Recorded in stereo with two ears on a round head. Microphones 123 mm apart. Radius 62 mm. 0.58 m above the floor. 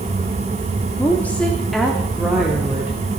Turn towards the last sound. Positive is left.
turn(degrees=-15)  # may be behind; listen again after turning